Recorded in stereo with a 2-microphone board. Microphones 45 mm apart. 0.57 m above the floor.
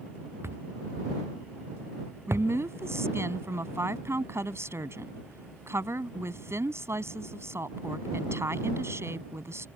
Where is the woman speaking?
80° right.